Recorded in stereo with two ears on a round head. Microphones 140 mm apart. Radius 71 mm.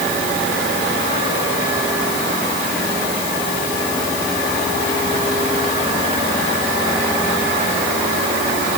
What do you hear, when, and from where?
Only background noise.